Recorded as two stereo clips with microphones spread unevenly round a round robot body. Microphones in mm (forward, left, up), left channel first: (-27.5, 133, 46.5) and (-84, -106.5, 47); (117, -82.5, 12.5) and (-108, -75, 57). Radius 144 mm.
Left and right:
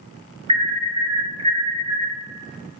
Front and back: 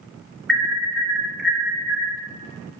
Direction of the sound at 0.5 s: 65° right.